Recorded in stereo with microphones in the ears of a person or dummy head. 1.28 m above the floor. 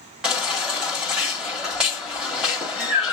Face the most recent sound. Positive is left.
turn(degrees=0)  # may be behind; listen again after turning